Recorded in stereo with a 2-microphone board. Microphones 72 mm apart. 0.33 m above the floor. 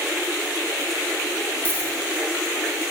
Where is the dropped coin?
25° left (ahead or behind), 4 m.